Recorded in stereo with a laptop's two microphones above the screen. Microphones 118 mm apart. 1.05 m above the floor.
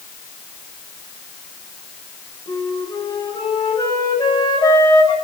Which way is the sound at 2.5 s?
35° left (ahead or behind).